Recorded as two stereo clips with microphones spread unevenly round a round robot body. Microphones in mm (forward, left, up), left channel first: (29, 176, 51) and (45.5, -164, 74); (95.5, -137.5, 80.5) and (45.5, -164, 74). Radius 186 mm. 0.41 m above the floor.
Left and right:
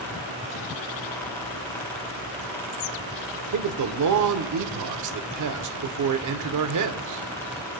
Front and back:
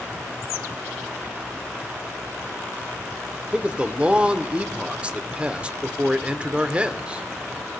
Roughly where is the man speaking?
Right.